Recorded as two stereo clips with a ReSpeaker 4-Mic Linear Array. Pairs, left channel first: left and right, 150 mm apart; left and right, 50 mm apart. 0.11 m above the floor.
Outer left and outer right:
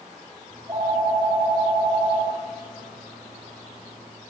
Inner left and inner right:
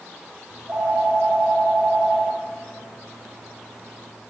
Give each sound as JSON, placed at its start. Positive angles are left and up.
{"t": 0.5, "sound": "a phone ringing", "side_deg": -25, "distance_m": 8.5}